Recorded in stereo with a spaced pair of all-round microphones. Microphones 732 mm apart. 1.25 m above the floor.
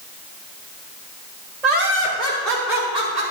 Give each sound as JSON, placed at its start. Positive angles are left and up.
{"t": 1.6, "sound": "laughter", "side_deg": -60, "distance_m": 3.0}